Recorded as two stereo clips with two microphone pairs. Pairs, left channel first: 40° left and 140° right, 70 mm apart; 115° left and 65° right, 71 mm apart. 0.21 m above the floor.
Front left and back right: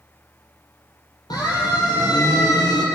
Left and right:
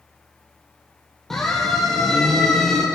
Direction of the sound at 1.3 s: 30° left.